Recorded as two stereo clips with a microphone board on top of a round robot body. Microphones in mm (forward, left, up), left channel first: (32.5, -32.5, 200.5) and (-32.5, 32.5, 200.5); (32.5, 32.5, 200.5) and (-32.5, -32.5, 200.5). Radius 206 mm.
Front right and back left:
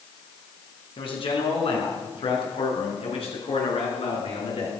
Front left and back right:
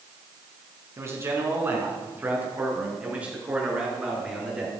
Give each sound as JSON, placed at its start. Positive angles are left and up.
{"t": 1.0, "sound": "a man speaking", "azimuth_deg": -70, "distance_m": 5.0}